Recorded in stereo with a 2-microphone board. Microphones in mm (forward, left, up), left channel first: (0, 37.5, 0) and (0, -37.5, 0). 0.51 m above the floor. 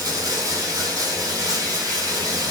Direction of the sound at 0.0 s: 55° right (ahead or behind).